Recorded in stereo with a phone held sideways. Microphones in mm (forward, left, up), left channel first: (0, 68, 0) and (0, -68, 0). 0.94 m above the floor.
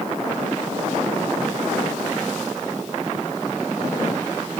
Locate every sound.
Only background noise.